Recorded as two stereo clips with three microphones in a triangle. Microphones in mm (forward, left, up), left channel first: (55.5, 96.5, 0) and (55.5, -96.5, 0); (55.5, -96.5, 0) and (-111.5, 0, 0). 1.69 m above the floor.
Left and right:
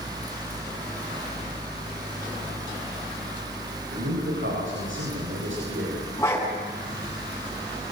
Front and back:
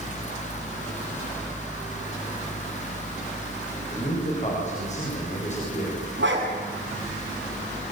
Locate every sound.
3.9 s a man speaking: 85° right, 8 m
6.2 s a dog barking: 165° left, 7.5 m